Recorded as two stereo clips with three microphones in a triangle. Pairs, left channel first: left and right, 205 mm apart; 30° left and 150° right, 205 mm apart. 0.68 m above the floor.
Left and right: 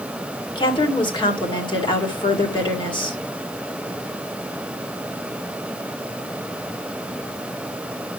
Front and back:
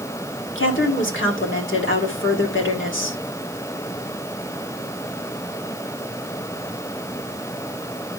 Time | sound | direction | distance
0.6 | a woman speaking | 25° left | 2 m